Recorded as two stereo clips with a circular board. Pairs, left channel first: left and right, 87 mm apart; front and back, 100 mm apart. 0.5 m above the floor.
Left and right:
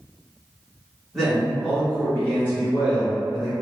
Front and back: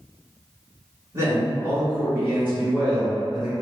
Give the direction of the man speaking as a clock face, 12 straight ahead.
6 o'clock.